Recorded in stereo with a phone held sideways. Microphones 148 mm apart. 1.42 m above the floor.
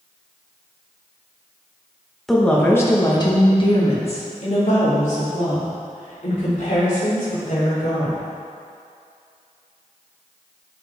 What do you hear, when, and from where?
2.3 s a woman speaking: centre (ahead or behind), 1.3 m; by 8.2 s 70° left (ahead or behind), 5.5 m